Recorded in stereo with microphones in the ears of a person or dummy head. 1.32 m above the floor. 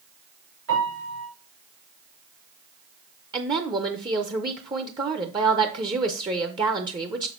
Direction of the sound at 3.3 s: 20° right (ahead or behind).